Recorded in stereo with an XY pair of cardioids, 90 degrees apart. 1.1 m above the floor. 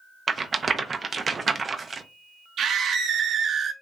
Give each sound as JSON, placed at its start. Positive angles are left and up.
{"t": 0.3, "sound": "a rattle", "azimuth_deg": -40, "distance_m": 0.6}
{"t": 2.6, "sound": "a scream", "azimuth_deg": -65, "distance_m": 1.0}